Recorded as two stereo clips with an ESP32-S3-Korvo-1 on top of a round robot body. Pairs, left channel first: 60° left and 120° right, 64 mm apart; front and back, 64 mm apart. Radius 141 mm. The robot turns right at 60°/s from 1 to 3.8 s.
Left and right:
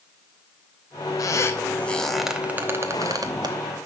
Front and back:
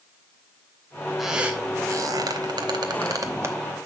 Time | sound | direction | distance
1.2 | a squeak | 90° left | 0.9 m